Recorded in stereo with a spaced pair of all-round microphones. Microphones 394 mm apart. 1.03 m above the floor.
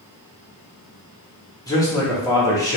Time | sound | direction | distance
1.7 | a man speaking | 10° left (ahead or behind) | 1.0 m